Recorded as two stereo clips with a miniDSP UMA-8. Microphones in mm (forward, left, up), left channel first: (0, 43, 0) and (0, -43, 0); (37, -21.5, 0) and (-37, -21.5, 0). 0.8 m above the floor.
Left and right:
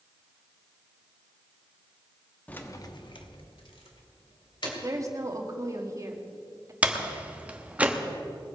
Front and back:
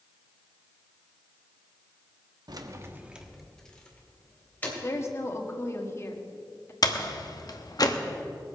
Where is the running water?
I don't hear running water.